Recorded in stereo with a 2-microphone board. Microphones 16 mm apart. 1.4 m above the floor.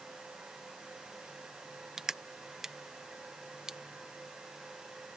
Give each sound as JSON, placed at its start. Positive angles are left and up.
{"t": 2.0, "sound": "crushing", "side_deg": -35}